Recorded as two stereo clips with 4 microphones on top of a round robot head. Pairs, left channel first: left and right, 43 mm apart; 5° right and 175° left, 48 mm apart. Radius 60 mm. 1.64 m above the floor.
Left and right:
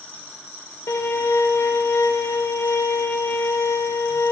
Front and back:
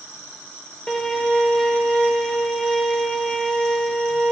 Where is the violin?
75° left, 2.5 m.